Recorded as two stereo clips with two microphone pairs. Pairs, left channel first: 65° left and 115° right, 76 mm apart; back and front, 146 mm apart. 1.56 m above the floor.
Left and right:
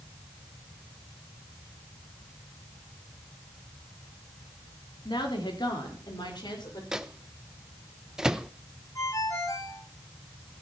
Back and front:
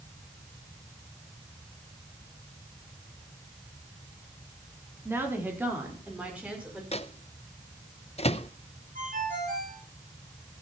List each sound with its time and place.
5.0 s a woman speaking: 75° left, 4 m; by 6.8 s 80° left, 6.5 m
6.9 s a microwave: 170° left, 0.7 m
8.9 s a ringtone: 20° left, 7 m